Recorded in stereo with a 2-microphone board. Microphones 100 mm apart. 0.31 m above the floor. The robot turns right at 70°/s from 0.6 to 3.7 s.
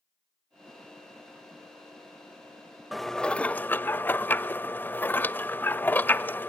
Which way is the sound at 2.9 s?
Centre (ahead or behind).